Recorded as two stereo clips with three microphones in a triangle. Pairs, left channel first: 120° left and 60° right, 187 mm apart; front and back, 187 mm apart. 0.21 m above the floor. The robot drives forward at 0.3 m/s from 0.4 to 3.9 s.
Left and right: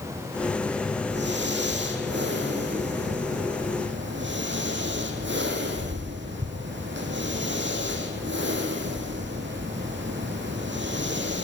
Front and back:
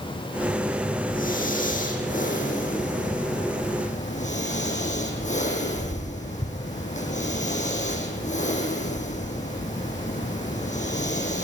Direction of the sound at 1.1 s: 40° right.